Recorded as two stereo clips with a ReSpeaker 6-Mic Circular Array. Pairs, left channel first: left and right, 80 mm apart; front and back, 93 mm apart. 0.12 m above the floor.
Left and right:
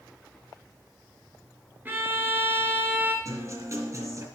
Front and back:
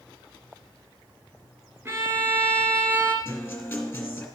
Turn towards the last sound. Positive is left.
turn(degrees=-60)